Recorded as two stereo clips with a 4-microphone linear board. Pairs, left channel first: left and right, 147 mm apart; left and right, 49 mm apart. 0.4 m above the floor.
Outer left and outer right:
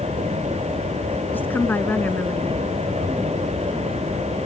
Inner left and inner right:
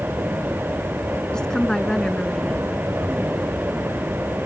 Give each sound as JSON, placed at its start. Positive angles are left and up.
{"t": 1.3, "sound": "a woman speaking", "side_deg": 15}